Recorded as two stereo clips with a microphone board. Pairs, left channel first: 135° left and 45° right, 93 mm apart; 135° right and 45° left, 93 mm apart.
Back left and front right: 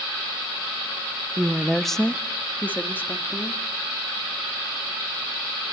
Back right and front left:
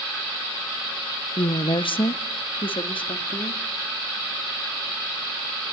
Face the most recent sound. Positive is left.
turn(degrees=-160)